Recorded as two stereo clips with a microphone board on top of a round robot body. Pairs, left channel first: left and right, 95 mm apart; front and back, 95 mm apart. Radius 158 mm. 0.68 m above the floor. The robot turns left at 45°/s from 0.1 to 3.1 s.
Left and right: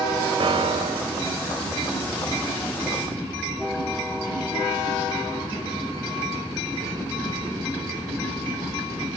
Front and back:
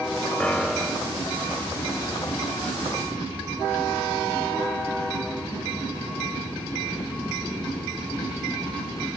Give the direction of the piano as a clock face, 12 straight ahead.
3 o'clock.